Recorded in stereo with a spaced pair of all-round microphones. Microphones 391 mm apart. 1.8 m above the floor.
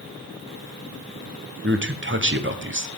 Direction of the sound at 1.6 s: 30° right (ahead or behind).